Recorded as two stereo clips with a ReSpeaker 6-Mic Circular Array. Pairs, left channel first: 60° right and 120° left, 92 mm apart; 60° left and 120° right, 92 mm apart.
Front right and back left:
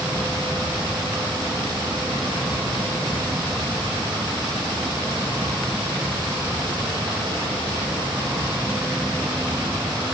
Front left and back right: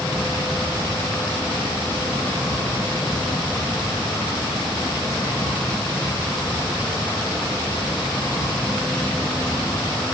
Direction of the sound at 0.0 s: 95° left.